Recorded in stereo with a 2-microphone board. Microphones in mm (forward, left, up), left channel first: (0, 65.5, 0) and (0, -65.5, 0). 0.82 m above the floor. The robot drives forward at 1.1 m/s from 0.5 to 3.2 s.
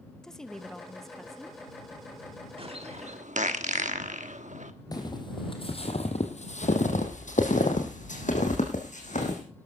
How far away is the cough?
No cough in this recording.